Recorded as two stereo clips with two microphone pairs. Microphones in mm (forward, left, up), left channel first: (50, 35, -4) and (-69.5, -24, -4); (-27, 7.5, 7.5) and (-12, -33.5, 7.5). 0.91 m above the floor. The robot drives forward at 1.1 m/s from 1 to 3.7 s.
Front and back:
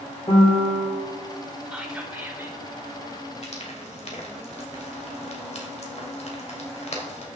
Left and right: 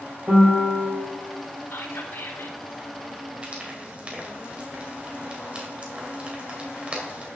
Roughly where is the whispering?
Behind left.